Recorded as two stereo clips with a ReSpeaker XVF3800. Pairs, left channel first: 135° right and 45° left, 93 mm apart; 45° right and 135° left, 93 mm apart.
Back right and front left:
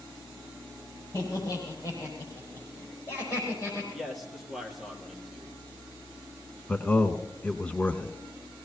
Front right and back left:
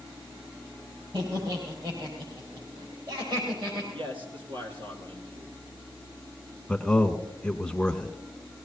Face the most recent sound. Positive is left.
turn(degrees=-100)